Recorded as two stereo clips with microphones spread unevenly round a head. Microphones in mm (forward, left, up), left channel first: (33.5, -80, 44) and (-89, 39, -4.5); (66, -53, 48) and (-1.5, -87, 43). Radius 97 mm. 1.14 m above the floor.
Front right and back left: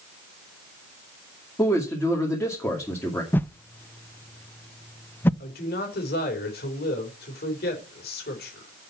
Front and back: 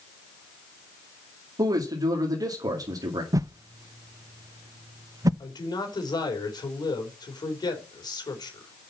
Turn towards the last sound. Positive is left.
turn(degrees=0)